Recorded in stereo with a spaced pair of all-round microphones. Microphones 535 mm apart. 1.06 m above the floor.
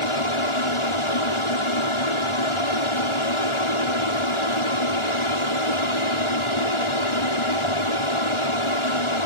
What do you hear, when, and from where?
0.0 s an aircraft: 65° left (ahead or behind)